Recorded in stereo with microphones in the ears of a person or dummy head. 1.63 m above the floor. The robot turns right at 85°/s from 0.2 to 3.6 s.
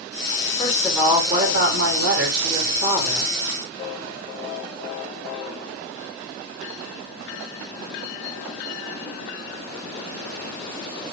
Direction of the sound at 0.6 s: 150° left.